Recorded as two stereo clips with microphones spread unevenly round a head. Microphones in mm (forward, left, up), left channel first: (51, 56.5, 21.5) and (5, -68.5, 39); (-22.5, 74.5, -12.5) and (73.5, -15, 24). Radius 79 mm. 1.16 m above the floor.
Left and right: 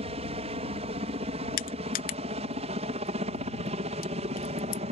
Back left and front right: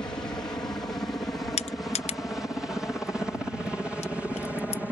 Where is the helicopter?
150° right; by 4.9 s 135° right.